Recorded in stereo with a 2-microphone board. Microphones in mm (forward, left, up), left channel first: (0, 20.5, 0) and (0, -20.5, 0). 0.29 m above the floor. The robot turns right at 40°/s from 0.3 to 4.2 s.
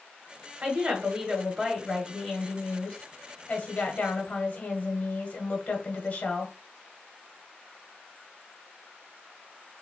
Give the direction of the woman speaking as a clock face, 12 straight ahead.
2 o'clock.